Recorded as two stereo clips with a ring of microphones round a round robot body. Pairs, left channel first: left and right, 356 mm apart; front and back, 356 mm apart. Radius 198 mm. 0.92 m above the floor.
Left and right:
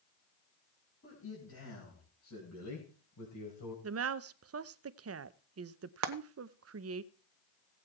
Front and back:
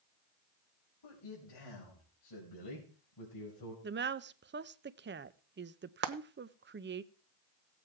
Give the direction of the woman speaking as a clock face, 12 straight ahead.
4 o'clock.